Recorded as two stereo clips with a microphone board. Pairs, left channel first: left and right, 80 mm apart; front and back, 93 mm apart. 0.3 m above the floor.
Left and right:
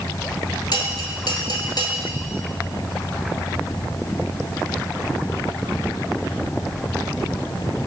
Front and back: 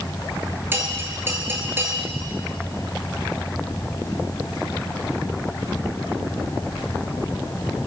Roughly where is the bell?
Behind left.